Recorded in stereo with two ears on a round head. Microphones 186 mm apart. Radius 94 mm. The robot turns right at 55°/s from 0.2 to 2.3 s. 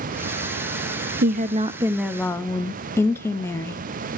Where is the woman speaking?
50° right, 0.7 m; by 3.8 s 10° left, 0.7 m.